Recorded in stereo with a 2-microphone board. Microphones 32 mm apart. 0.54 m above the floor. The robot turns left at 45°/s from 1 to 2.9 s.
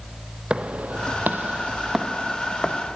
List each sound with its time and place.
0.5 s footsteps: 35° right (ahead or behind), 1.1 m; by 3.0 s 40° left (ahead or behind), 2 m